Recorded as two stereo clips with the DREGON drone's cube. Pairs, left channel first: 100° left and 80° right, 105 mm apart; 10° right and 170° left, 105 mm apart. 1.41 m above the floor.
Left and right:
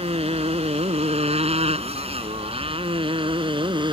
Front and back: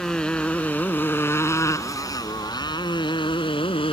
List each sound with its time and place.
0.0 s a motorcycle: 95° right; by 3.9 s 40° right